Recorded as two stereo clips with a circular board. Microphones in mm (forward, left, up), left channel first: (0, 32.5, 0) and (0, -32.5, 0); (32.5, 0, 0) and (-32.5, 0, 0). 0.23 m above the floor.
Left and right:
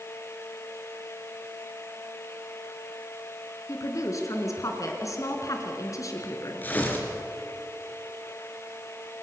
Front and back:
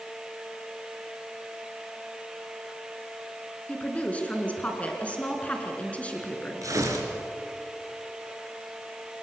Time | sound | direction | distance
3.7 | a woman speaking | 70° left | 3.5 m
6.6 | tearing paper | 150° left | 3.5 m